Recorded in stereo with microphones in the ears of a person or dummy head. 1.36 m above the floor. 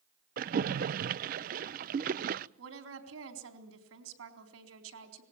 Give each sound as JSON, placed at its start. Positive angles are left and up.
{"t": 0.4, "sound": "a splash", "side_deg": -45, "distance_m": 0.5}
{"t": 2.6, "sound": "a woman speaking", "side_deg": -85, "distance_m": 4.0}